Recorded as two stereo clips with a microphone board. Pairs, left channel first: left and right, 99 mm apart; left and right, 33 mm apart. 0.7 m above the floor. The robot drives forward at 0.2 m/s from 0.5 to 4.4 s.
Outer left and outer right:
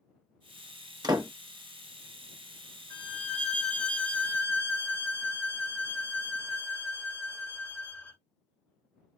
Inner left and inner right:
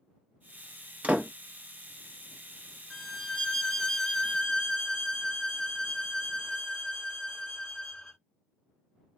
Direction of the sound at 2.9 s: 10° left (ahead or behind).